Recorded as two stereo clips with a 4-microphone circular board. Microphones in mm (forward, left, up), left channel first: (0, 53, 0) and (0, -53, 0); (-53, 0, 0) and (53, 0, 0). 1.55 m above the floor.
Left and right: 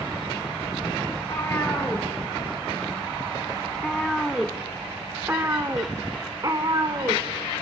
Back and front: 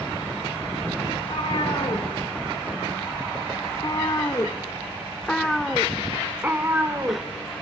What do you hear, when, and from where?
1.1 s a cat meowing: 155° left, 2.5 m; by 7.2 s 55° right, 1.8 m